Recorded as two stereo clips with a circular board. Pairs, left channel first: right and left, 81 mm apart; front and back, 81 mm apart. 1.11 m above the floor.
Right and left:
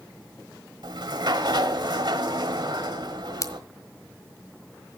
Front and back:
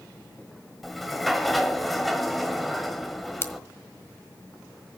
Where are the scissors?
55° right, 1.5 m.